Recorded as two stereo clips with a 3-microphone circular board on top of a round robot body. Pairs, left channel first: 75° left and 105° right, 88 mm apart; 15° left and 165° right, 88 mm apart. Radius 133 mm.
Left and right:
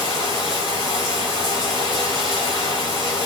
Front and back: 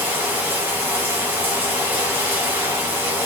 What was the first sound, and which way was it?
Running water, 130° left.